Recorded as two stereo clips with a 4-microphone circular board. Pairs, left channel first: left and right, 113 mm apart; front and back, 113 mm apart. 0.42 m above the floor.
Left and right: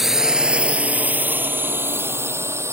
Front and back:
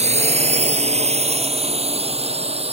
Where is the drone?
175° right; by 2.7 s 155° right.